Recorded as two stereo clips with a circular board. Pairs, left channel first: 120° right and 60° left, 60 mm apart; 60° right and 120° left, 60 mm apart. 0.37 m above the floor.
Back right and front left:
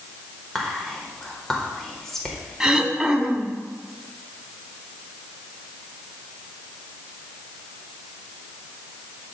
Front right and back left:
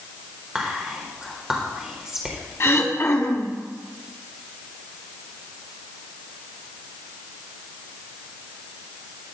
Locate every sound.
0.6 s whispering: 170° left, 1.0 m
2.6 s throat clearing: 20° right, 0.8 m